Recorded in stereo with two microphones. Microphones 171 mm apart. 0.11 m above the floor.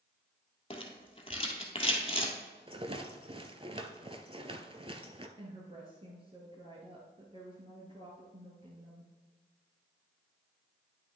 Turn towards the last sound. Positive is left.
turn(degrees=-30)  # may be behind; listen again after turning